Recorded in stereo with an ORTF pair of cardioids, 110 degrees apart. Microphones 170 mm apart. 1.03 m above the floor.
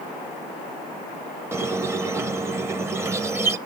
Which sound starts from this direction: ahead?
A squeak, at 1.5 s.